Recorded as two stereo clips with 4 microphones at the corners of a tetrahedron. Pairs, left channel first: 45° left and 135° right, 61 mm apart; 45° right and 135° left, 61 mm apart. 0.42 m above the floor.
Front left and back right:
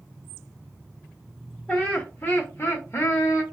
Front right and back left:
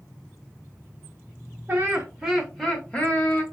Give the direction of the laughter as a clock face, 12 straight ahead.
9 o'clock.